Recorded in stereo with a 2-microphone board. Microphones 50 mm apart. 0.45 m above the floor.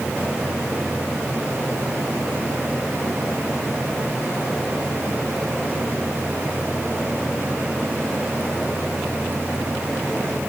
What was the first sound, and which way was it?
Only background noise.